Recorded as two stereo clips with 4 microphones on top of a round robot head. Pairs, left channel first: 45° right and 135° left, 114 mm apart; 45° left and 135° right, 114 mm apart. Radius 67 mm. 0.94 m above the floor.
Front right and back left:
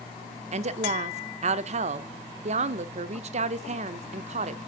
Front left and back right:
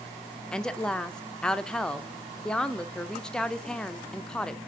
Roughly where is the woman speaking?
Behind left.